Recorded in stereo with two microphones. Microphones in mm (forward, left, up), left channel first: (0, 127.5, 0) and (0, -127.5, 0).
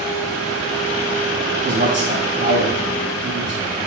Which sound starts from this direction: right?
A man speaking, at 1.6 s.